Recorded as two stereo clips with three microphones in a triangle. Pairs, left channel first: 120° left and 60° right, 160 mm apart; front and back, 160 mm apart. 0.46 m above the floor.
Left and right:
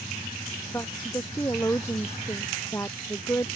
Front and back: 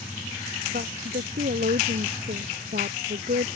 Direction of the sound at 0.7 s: 165° right.